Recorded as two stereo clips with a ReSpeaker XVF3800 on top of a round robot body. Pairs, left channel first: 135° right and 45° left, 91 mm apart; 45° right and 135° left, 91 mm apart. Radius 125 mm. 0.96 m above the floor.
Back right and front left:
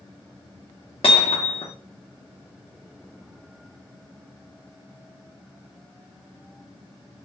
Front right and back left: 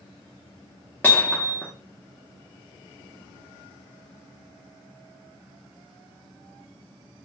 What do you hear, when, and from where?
1.0 s hammering: 115° right, 0.5 m